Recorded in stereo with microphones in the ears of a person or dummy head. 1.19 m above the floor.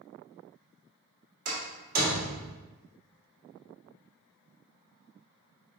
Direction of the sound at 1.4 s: 50° right (ahead or behind).